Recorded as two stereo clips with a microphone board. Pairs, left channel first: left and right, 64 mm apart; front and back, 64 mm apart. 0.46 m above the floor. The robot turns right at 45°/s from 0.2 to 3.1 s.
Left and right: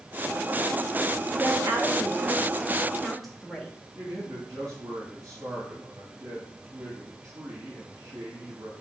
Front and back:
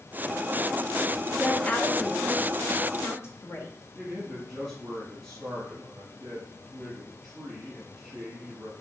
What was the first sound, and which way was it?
A woman speaking, 75° right.